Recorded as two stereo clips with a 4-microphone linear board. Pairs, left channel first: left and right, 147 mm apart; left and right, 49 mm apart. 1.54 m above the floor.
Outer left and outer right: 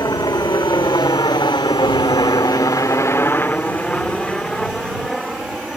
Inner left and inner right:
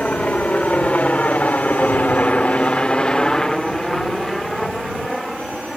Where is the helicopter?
25° left (ahead or behind); by 5.8 s centre (ahead or behind).